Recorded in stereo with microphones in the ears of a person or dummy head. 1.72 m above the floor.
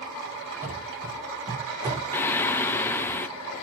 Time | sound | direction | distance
0.6 | running footsteps | 10° right (ahead or behind) | 3 m
2.1 | singing | 15° left (ahead or behind) | 0.5 m